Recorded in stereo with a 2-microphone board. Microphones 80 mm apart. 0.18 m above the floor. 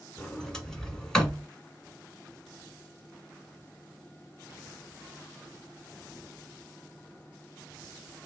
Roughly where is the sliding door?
Centre.